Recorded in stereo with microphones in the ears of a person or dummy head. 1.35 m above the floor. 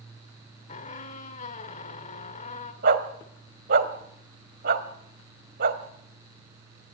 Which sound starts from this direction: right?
A dog barking, at 2.8 s.